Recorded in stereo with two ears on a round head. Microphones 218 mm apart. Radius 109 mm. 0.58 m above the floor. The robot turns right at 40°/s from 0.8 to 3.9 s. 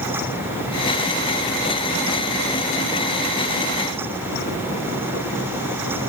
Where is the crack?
No crack in this recording.